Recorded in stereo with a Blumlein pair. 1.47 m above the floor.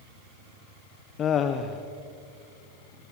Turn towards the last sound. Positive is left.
turn(degrees=25)